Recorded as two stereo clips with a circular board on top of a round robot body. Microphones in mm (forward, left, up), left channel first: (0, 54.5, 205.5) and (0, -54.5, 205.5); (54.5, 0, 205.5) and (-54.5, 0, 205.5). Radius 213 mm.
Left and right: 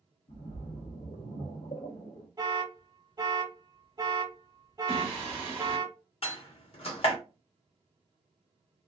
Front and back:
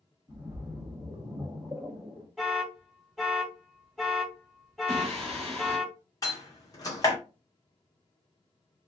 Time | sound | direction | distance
0.3 | a splash | 110° left | 1.1 m
2.4 | an alarm | 90° right | 1.1 m
4.9 | singing | 160° right | 2 m
6.2 | a door slam | 60° left | 0.9 m